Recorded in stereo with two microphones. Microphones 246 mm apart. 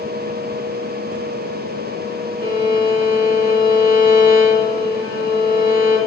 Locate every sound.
2.4 s a violin: 35° left (ahead or behind), 2 m